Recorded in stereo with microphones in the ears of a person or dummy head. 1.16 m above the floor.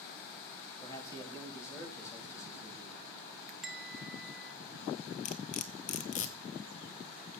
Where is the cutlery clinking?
35° left (ahead or behind), 0.8 m.